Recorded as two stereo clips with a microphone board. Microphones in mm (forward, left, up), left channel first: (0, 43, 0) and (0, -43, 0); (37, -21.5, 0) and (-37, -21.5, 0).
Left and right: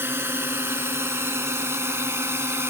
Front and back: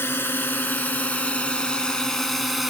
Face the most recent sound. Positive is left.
turn(degrees=-95)